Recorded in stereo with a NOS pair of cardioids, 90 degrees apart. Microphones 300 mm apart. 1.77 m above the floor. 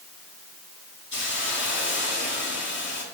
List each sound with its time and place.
1.1 s a hiss: 40° left, 3.5 m